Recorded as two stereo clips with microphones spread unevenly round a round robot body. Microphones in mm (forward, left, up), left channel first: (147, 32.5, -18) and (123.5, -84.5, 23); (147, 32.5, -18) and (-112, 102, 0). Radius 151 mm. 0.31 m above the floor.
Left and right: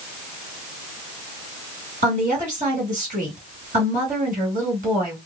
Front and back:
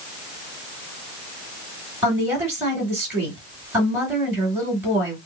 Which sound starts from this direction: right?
A woman speaking, at 2.0 s.